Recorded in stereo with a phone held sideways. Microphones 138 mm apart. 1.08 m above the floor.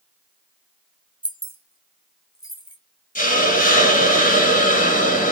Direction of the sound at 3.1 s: 70° left (ahead or behind).